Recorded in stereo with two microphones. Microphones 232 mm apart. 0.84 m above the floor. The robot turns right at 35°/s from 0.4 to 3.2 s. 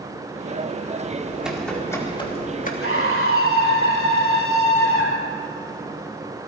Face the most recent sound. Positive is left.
turn(degrees=70)  # may be behind; listen again after turning